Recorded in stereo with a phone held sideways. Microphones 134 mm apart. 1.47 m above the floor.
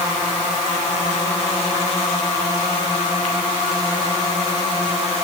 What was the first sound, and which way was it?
Only background noise.